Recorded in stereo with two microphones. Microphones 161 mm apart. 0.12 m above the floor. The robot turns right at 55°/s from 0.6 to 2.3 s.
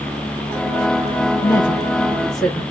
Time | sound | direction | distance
1.4 | a woman speaking | 15° left (ahead or behind) | 1.7 m